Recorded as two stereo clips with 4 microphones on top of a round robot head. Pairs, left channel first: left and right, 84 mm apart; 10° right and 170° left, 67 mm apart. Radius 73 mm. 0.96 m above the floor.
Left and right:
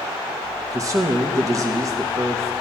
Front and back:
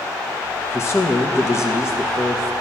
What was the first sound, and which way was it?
A man speaking, 50° right.